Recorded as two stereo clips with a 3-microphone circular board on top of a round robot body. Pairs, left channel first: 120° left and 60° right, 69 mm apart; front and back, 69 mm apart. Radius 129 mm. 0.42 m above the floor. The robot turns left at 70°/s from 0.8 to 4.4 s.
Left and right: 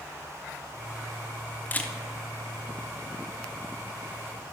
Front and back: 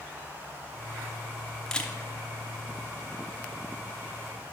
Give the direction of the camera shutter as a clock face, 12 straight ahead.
10 o'clock.